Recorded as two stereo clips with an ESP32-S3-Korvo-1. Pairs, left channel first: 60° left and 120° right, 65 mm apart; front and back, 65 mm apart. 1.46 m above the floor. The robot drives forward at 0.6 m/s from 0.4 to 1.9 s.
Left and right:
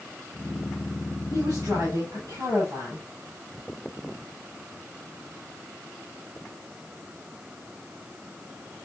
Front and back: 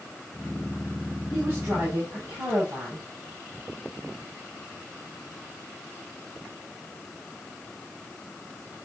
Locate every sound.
1.3 s a woman speaking: 135° right, 5.5 m